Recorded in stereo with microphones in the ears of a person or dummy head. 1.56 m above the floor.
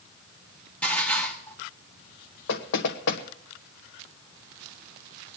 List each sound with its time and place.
0.8 s dishes clattering: 10° left (ahead or behind), 1.7 m
2.5 s knocking: 65° left (ahead or behind), 1.1 m